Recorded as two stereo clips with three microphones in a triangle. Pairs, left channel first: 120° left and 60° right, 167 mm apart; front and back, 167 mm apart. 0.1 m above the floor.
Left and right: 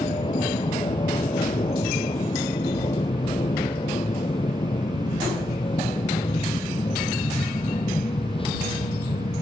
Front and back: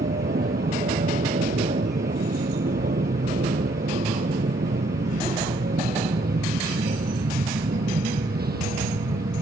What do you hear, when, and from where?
0.0 s an aircraft: 175° left